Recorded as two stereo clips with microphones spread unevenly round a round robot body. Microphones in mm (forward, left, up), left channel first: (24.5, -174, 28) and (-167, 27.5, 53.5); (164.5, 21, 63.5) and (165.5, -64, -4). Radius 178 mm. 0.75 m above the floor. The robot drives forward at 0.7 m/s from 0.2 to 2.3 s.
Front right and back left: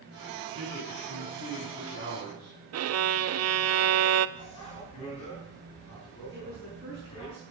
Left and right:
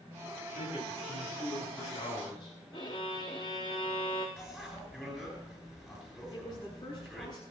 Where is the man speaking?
60° left, 9 m; by 2.6 s 70° left, 8.5 m.